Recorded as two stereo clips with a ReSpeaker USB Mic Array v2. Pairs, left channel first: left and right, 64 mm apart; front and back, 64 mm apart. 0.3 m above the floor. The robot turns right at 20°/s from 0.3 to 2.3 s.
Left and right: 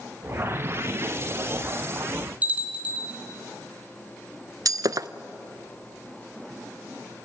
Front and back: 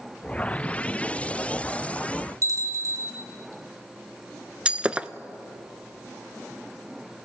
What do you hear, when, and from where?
2.4 s a bell: 155° right, 3.5 m
4.7 s breaking glass: 110° right, 0.5 m